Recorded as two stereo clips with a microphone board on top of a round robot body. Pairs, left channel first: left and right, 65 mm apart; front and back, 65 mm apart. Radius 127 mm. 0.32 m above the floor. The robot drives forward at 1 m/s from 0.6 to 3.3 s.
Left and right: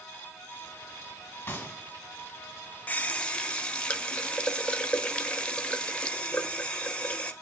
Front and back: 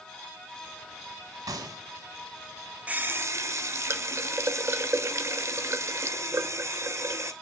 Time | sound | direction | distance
1.5 | a gunshot | 155° left | 1.2 m
2.9 | a running tap | 130° left | 0.7 m